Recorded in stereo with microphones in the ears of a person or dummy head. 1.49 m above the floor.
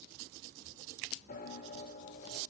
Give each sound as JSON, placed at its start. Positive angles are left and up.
{"t": 1.3, "sound": "a piano", "side_deg": 50, "distance_m": 3.5}